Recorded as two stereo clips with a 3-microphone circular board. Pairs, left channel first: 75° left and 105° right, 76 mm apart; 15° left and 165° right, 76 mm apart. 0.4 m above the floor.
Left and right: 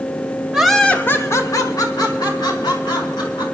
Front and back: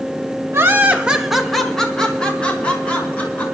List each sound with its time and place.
0.5 s laughter: straight behind, 1.0 m; by 3.4 s 85° left, 3.5 m